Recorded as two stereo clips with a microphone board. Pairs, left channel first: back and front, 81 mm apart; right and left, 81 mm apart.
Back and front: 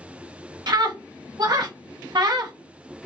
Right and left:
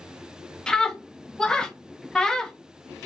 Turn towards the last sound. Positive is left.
turn(degrees=-10)